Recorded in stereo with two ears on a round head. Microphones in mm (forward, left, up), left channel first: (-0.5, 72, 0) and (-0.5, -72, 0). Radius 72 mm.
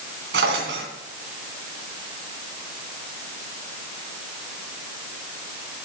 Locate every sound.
0.3 s a drawer: 80° right, 2.5 m